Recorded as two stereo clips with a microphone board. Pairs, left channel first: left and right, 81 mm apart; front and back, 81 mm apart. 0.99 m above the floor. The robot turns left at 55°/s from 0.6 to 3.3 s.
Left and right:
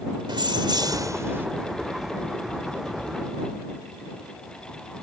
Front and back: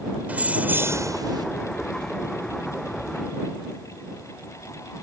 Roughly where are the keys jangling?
Right.